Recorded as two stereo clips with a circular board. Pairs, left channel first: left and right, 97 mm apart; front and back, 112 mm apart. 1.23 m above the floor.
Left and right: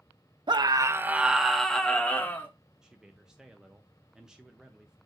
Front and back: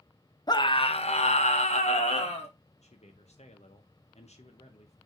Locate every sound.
0.5 s a scream: 50° right, 0.7 m; by 2.5 s 20° left, 1.6 m
2.8 s a man speaking: 5° right, 0.8 m